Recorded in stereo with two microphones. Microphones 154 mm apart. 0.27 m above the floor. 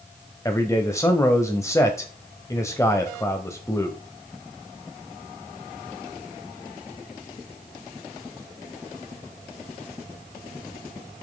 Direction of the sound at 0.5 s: 20° left (ahead or behind).